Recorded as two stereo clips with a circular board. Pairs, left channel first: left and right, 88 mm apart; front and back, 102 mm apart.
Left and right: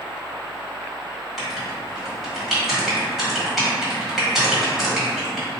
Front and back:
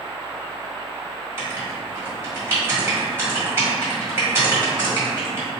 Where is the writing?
175° right, 1.6 m.